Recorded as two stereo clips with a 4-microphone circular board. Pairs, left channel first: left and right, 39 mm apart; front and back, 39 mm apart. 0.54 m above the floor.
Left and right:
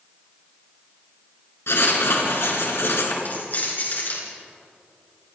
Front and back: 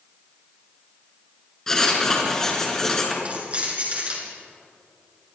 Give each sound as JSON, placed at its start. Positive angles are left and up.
{"t": 1.7, "sound": "writing", "azimuth_deg": 80, "distance_m": 4.5}
{"t": 3.2, "sound": "keys jangling", "azimuth_deg": 125, "distance_m": 6.5}